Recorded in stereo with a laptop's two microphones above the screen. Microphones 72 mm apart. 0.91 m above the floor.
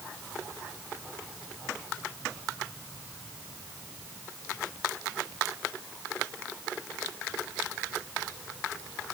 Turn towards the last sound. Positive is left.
No sound to turn to.